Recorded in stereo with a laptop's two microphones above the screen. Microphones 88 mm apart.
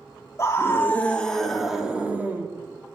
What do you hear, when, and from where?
0.4 s a scream: 35° left (ahead or behind), 2.5 m; by 2.5 s 25° right (ahead or behind), 2.5 m